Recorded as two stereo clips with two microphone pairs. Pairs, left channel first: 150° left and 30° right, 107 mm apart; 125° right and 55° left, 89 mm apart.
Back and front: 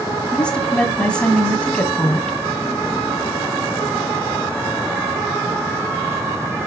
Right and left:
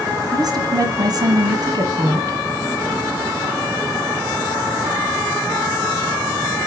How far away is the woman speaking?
About 1.7 m.